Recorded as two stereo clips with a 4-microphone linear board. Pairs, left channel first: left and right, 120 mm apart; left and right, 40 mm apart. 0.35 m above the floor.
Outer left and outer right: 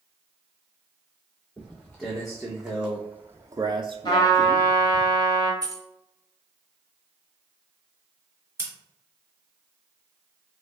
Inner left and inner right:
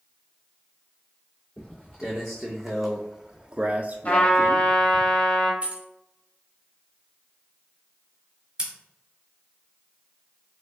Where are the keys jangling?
35° right (ahead or behind), 0.5 m.